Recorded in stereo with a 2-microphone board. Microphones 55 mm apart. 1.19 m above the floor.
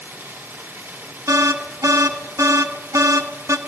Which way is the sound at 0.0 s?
45° right (ahead or behind).